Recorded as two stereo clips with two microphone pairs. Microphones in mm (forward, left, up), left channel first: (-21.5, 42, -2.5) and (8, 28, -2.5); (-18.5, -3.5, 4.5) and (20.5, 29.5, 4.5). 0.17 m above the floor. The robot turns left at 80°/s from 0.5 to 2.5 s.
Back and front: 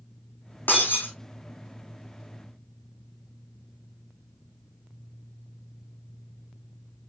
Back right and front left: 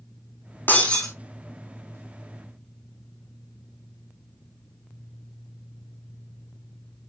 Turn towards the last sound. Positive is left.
turn(degrees=20)